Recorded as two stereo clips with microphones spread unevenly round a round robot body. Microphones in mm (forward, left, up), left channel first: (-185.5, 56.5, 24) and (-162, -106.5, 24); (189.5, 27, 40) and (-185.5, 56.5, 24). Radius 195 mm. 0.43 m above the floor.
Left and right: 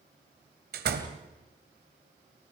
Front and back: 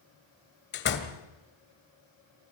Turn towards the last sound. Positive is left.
turn(degrees=-65)